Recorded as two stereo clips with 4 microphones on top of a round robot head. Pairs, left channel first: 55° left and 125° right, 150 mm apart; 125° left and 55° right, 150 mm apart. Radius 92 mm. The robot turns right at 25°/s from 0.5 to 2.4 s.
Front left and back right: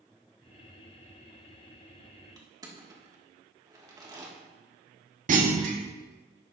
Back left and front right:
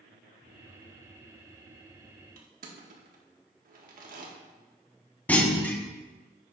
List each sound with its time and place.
2.4 s crushing: 65° right, 1.7 m
5.3 s a clunk: 155° right, 1.2 m